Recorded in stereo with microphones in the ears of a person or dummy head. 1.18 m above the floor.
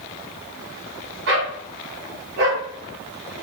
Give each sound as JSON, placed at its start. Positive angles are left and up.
{"t": 1.3, "sound": "a dog barking", "side_deg": -70, "distance_m": 4.5}